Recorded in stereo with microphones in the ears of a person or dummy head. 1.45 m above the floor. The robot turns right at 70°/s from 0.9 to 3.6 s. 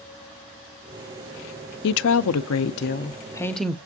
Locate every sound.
1.8 s a woman speaking: 60° left, 0.6 m; by 3.8 s straight behind, 0.6 m